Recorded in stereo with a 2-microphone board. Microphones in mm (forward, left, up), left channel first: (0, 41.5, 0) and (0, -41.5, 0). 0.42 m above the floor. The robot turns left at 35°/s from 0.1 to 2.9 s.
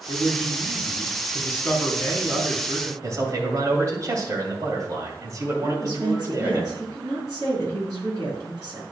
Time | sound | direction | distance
0.1 | a man speaking | 80° left | 3 m
3.0 | a man speaking | 40° right (ahead or behind) | 2.5 m
5.6 | a woman speaking | 45° right (ahead or behind) | 5 m